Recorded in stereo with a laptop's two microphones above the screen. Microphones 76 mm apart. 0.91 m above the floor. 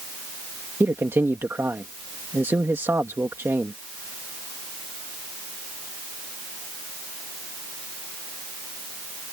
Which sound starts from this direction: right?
A man speaking, at 0.8 s.